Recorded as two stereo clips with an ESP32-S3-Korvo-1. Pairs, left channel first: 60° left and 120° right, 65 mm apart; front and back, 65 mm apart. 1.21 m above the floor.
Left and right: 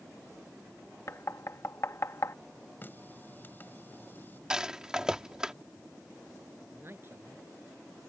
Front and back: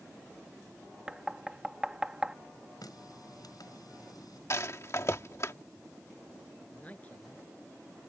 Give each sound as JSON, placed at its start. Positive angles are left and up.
{"t": 1.1, "sound": "knocking", "azimuth_deg": 105}
{"t": 2.8, "sound": "a running tap", "azimuth_deg": 0}
{"t": 4.5, "sound": "a rattle", "azimuth_deg": -40}
{"t": 6.7, "sound": "a man speaking", "azimuth_deg": -65}